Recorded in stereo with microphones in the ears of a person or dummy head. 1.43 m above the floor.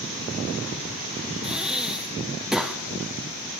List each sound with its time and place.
1.4 s breathing: 5° right (ahead or behind), 1.2 m